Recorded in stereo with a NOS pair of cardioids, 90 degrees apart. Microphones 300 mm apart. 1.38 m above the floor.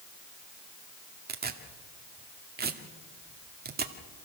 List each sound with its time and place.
1.3 s tearing paper: 35° right, 2 m